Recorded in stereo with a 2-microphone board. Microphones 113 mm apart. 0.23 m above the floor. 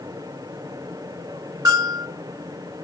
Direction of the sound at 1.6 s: 35° right (ahead or behind).